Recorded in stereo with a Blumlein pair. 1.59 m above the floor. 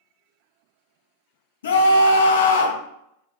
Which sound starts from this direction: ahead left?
A scream, at 1.6 s.